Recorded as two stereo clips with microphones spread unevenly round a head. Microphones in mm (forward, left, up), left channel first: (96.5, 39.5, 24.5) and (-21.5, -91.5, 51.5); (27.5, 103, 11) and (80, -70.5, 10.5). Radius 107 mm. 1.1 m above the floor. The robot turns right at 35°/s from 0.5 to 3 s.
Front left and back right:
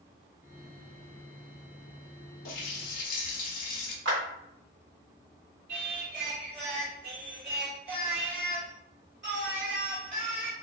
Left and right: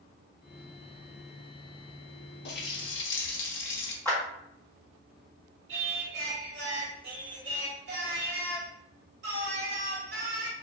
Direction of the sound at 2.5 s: 80° left.